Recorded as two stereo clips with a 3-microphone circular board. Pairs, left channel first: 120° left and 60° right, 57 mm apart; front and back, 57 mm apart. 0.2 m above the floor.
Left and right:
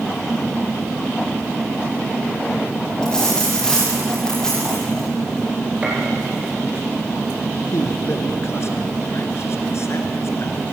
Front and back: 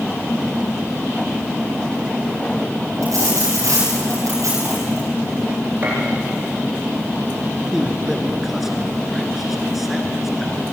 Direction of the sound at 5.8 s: 125° right.